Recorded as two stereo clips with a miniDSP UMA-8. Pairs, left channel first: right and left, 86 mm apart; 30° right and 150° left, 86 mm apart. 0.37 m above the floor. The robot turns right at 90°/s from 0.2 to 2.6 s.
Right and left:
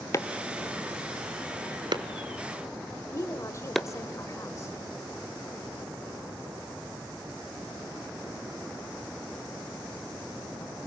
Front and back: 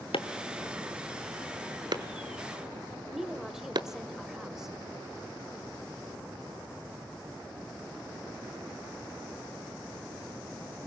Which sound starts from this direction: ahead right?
Chopping, at 0.1 s.